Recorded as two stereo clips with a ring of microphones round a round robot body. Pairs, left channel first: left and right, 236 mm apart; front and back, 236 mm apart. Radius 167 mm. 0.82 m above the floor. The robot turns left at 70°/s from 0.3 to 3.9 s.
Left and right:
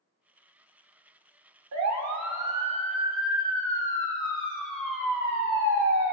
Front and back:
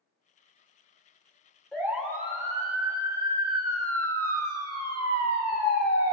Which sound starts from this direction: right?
A siren, at 1.7 s.